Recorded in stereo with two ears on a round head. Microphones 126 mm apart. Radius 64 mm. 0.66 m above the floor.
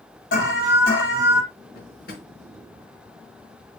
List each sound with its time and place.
0.3 s an alarm: 70° left (ahead or behind), 6 m
1.8 s a drawer: 80° left, 4 m